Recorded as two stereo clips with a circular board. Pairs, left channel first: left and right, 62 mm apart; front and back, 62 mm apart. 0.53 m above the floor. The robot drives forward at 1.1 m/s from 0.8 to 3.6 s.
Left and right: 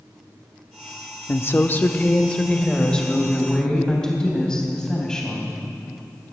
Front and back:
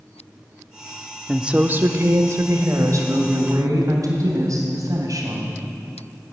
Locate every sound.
1.3 s a woman speaking: 95° left, 0.8 m; by 5.6 s 170° left, 2.5 m